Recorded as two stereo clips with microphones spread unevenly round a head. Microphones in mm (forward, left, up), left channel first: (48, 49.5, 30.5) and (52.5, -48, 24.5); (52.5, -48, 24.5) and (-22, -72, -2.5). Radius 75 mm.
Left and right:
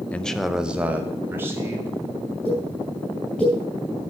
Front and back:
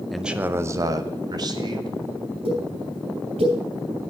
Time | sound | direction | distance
0.1 | a man speaking | 155° left | 0.5 m
2.5 | a pop | 175° left | 3 m